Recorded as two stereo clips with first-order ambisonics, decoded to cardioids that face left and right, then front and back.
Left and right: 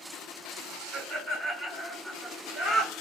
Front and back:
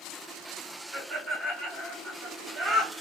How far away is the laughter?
About 1.4 m.